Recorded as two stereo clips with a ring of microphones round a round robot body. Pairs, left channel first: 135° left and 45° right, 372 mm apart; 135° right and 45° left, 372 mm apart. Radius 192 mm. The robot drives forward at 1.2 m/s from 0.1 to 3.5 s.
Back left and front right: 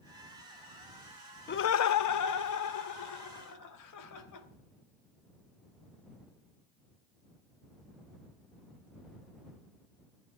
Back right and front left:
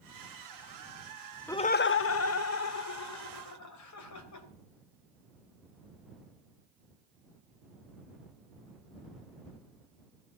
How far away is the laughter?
About 0.5 m.